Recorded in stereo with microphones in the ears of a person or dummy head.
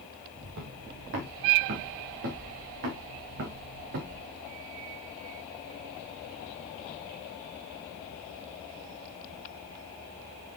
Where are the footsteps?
45° right (ahead or behind), 2 m; by 4.2 s 55° right (ahead or behind), 4.5 m.